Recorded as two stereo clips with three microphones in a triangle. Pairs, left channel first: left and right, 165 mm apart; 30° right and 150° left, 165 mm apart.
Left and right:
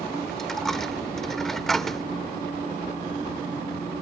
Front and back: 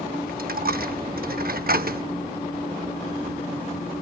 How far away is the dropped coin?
About 0.6 m.